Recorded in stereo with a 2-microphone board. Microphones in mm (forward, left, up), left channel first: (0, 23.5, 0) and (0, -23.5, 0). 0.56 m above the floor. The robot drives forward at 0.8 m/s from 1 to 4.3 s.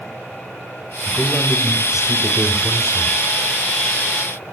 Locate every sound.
1.1 s a man speaking: 10° right (ahead or behind), 3.5 m; by 3.2 s 15° right (ahead or behind), 1.8 m